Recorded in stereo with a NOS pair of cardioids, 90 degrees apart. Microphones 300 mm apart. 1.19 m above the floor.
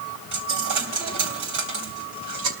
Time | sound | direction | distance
0.3 | a dropped coin | 70° right | 3 m